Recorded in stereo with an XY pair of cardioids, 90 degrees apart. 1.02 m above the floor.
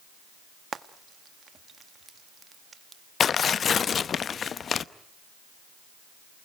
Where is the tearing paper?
55° left, 0.7 m.